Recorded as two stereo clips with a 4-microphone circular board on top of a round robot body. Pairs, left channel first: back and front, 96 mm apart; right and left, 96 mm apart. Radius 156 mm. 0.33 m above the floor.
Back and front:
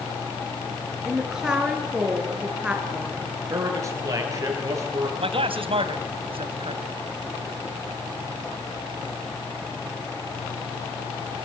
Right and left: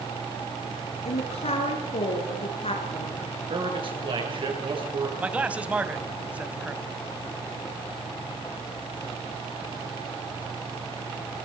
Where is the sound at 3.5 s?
55° left, 8 m.